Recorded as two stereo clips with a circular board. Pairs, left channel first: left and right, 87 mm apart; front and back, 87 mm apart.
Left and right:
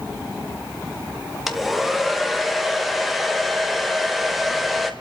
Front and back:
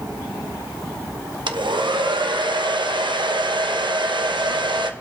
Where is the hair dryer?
175° right, 1.2 m.